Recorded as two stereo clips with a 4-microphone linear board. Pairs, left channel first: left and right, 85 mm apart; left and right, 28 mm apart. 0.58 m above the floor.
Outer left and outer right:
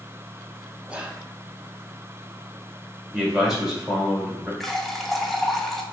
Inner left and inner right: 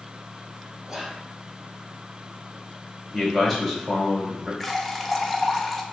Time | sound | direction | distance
0.9 | whispering | 15° right (ahead or behind) | 0.6 m
3.1 | a man speaking | 5° right (ahead or behind) | 1.8 m
4.6 | a running tap | 5° left (ahead or behind) | 0.5 m